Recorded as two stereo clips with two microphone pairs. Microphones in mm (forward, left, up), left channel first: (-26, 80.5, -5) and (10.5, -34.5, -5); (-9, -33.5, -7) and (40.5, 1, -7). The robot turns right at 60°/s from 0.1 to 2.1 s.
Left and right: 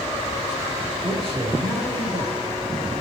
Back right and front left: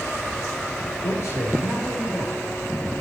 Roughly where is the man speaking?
Behind right.